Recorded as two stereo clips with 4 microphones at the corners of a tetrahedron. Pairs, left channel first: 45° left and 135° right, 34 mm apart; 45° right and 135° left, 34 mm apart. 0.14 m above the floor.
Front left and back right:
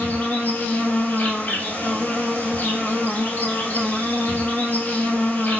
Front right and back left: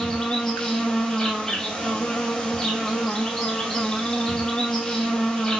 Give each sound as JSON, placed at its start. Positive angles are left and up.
{"t": 0.0, "sound": "an insect", "azimuth_deg": 20, "distance_m": 1.3}